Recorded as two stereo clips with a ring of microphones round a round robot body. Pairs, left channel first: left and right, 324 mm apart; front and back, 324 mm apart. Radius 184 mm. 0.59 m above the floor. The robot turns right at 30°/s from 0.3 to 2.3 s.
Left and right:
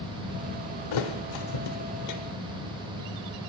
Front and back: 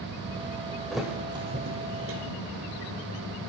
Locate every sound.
0.9 s a thud: 90° left, 1.0 m; by 2.2 s 125° left, 1.0 m